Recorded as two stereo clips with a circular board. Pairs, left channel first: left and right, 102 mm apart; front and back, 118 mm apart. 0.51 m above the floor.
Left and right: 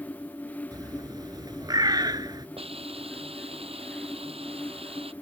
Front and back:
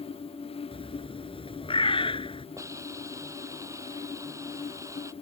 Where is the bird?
40° right.